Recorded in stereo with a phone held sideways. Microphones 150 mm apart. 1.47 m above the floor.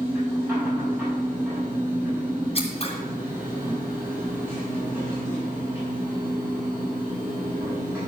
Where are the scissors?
45° left (ahead or behind), 2 m.